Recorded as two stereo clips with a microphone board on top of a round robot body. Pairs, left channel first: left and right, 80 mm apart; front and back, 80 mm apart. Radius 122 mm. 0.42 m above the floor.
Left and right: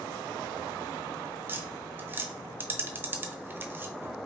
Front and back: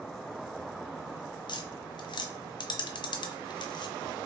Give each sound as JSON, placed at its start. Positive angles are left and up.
{"t": 1.5, "sound": "tapping", "azimuth_deg": -25, "distance_m": 0.6}